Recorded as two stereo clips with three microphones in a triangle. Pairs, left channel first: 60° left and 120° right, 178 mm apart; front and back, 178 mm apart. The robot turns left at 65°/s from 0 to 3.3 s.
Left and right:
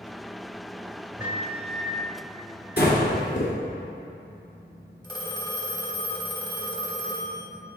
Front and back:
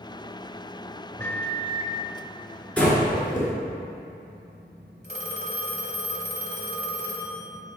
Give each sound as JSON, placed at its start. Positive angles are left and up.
{"t": 1.2, "sound": "a microwave", "azimuth_deg": -50, "distance_m": 1.0}
{"t": 2.8, "sound": "breathing", "azimuth_deg": 85, "distance_m": 1.8}
{"t": 5.0, "sound": "a phone ringing", "azimuth_deg": -5, "distance_m": 1.2}